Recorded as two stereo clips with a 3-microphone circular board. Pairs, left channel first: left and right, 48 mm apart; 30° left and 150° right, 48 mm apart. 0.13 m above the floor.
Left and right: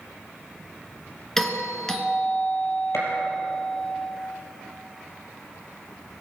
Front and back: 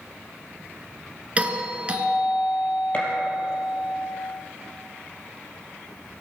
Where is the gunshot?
85° left, 4.5 m.